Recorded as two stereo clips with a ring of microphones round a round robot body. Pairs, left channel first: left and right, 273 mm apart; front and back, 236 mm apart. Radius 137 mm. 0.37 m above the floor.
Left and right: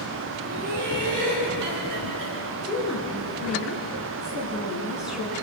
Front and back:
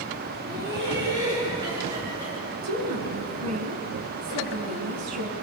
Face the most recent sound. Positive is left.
turn(degrees=-175)